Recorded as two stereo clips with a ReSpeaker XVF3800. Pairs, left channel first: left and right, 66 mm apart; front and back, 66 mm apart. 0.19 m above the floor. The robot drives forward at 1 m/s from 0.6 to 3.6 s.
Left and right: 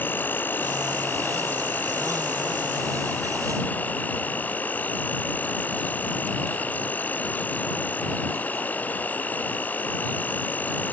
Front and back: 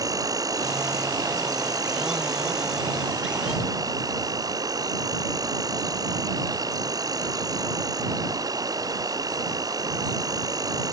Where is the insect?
155° left.